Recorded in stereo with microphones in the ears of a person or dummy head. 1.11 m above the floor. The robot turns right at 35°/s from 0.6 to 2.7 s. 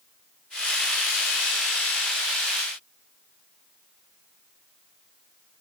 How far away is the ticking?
No ticking in this recording.